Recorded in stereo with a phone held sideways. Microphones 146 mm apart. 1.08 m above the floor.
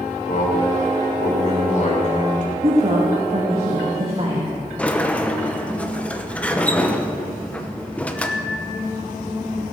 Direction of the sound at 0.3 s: 60° left (ahead or behind).